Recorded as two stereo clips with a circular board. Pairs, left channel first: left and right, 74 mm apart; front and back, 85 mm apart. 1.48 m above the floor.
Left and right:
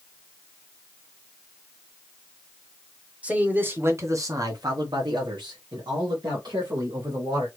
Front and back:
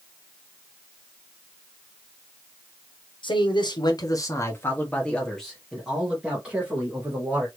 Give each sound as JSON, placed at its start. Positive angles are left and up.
{"t": 3.2, "sound": "a man speaking", "azimuth_deg": -20, "distance_m": 1.3}